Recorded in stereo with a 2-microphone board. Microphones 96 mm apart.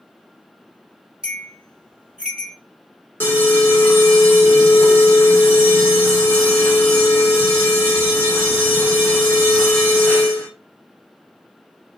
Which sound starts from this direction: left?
An alarm, at 3.2 s.